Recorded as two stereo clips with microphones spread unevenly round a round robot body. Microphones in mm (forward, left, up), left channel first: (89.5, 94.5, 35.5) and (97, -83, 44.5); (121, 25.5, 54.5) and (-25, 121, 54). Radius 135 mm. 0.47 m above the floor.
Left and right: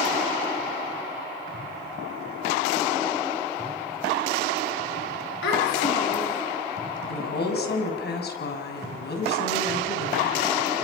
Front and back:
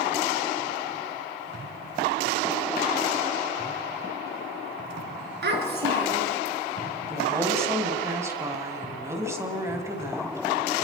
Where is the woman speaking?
70° left, 4.5 m.